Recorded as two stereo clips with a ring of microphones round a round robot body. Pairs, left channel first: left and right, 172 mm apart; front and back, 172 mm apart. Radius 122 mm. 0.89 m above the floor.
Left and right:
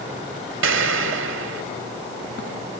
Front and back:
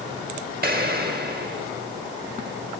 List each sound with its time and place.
0.6 s an explosion: 125° right, 1.6 m